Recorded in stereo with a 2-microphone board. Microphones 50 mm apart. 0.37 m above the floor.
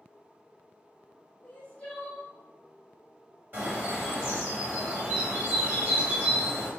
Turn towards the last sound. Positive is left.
turn(degrees=-40)  # may be behind; listen again after turning